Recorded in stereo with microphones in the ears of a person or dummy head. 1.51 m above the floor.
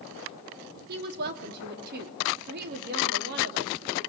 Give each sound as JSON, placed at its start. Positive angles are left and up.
{"t": 0.9, "sound": "a woman speaking", "side_deg": -55, "distance_m": 3.0}